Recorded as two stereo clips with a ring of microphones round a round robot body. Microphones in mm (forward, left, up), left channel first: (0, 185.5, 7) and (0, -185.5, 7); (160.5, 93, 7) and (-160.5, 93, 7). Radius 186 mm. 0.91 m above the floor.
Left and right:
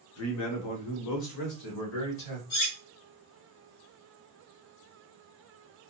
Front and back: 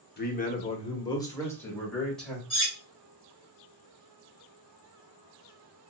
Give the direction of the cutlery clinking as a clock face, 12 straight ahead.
10 o'clock.